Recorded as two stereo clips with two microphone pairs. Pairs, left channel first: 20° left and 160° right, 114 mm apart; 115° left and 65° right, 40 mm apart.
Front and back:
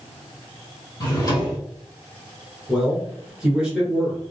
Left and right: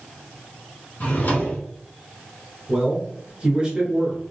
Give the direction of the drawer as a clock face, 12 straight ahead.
9 o'clock.